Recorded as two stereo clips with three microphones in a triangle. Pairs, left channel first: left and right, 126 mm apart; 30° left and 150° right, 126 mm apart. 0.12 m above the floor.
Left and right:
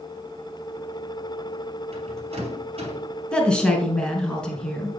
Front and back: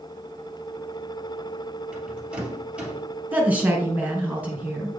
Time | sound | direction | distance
1.9 | a rattle | 70° right | 2.5 m
3.3 | a woman speaking | 160° left | 1.7 m